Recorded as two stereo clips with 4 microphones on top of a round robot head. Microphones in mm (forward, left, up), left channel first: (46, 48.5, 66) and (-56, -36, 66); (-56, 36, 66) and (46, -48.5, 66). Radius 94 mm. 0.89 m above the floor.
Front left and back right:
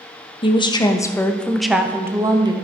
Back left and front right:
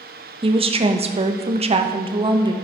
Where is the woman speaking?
Straight ahead, 1.2 m; by 2.5 s 90° right, 1.2 m.